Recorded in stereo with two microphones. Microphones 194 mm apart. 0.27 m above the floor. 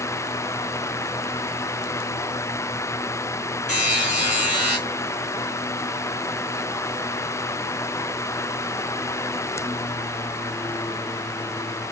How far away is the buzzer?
About 2.5 m.